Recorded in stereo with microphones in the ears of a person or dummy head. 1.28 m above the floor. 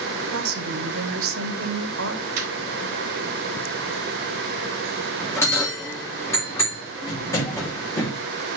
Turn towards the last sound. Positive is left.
turn(degrees=20)  # may be behind; listen again after turning